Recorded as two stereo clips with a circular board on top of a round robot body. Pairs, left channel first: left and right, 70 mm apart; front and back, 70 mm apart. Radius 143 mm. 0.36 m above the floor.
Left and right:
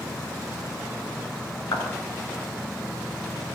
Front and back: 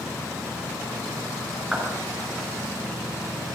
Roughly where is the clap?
Left.